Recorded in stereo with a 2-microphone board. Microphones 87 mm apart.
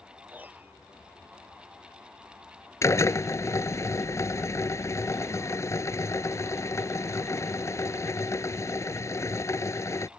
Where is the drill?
35° left (ahead or behind).